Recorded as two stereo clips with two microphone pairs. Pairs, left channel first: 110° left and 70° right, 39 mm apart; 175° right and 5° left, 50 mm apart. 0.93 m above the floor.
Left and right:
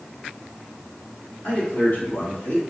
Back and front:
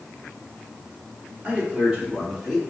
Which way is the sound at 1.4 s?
70° left.